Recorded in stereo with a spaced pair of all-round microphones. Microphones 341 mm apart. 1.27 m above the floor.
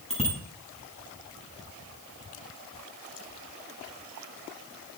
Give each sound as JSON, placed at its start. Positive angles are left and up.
{"t": 0.1, "sound": "a bicycle bell", "side_deg": 20, "distance_m": 7.0}